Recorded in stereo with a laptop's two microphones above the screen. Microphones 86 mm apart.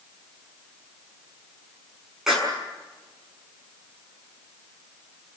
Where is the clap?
5° right (ahead or behind), 6.5 m.